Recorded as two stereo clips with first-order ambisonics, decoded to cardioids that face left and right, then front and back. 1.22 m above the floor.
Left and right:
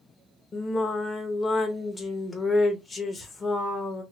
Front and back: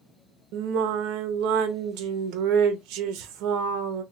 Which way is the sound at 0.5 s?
165° left.